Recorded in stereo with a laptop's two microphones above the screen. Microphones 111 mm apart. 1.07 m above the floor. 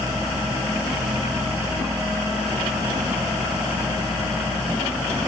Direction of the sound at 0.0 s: 15° right (ahead or behind).